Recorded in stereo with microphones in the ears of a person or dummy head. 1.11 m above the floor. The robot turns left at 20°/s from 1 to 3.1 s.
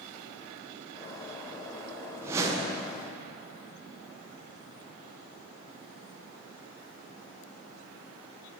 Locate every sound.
2.2 s a whoosh: 10° right (ahead or behind), 0.5 m; by 2.9 s 20° right (ahead or behind), 0.5 m